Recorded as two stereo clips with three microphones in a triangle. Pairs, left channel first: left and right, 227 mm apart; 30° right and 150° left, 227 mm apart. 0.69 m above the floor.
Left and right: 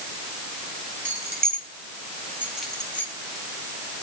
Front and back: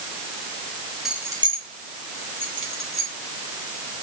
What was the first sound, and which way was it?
Keys jangling, 120° right.